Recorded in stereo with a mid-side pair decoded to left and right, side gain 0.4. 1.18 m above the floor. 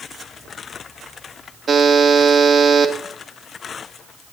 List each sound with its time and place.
1.7 s a buzzer: 45° right, 2 m